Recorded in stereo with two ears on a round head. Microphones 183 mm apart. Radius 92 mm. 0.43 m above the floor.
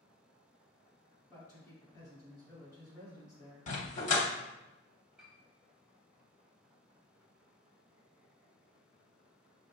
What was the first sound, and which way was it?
A man speaking, 15° left (ahead or behind).